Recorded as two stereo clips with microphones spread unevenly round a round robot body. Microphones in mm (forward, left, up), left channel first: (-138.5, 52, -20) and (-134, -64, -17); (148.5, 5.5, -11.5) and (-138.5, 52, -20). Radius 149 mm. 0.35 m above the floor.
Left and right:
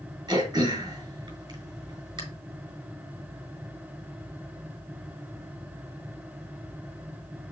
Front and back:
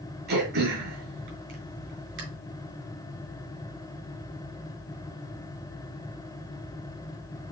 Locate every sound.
0.3 s throat clearing: 140° right, 3 m